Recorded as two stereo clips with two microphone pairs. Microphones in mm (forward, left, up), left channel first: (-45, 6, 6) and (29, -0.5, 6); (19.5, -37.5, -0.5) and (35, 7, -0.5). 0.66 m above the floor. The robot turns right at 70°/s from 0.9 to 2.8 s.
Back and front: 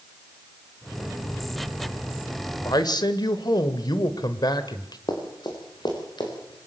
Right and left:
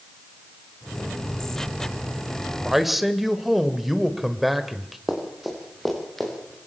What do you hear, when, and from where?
2.6 s a man speaking: 150° left, 2 m; by 5.0 s 160° left, 2 m
5.1 s running footsteps: 155° left, 6 m; by 6.6 s 170° left, 7.5 m